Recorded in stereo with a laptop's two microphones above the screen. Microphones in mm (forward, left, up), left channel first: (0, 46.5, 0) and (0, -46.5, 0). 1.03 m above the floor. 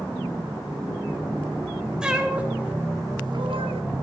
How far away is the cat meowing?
About 2 m.